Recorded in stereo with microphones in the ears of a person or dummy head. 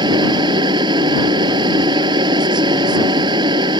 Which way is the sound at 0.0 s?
30° right (ahead or behind).